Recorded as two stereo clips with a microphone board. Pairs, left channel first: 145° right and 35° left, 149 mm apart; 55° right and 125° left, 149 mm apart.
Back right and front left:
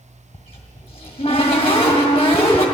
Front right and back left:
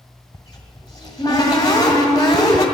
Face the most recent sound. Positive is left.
turn(degrees=-105)